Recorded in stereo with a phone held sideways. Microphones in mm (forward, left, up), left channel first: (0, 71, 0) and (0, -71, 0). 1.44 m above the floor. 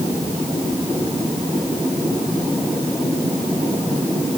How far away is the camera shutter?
No camera shutter in this recording.